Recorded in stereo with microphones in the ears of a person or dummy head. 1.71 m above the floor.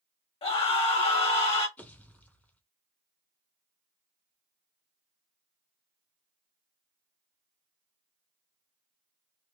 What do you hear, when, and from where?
0.4 s a scream: 35° left (ahead or behind), 1.2 m
1.8 s a pop: 10° left (ahead or behind), 0.8 m